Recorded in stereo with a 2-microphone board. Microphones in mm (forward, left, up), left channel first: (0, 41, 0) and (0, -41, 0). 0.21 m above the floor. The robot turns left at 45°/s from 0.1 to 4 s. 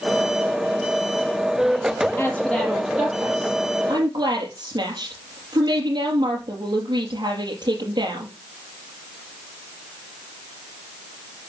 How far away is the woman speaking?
About 4.5 m.